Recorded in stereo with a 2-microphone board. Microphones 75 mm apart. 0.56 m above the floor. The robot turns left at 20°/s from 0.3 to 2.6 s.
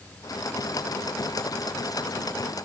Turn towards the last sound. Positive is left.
No sound to turn to.